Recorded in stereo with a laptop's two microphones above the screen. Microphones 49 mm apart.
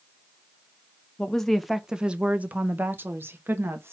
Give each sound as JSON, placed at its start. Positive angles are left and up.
{"t": 1.2, "sound": "a woman speaking", "side_deg": 20, "distance_m": 0.7}